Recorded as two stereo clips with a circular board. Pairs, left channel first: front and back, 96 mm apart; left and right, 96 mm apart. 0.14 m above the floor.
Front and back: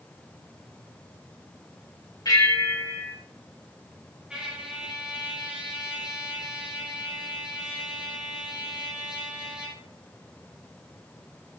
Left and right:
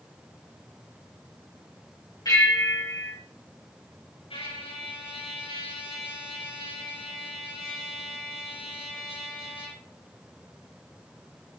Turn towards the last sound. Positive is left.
turn(degrees=100)